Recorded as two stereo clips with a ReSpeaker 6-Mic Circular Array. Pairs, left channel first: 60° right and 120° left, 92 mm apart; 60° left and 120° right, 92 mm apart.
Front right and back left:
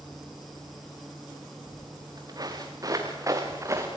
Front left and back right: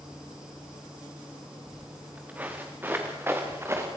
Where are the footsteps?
160° left, 4 m; by 3.9 s straight behind, 4 m.